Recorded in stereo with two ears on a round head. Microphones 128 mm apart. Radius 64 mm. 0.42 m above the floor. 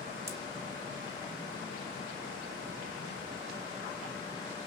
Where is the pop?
20° right (ahead or behind), 0.8 m.